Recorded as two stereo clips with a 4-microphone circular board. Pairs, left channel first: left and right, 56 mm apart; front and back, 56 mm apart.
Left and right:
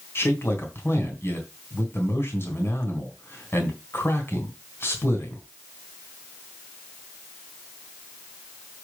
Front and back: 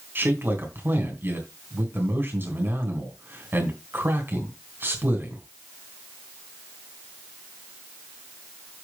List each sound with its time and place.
0.1 s a man speaking: 130° left, 3.5 m